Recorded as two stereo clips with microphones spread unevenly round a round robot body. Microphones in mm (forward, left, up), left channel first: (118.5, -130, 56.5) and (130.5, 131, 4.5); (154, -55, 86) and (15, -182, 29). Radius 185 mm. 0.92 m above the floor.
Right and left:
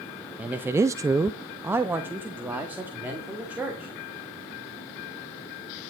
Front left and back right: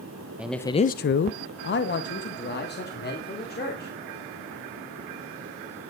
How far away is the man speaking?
About 0.6 m.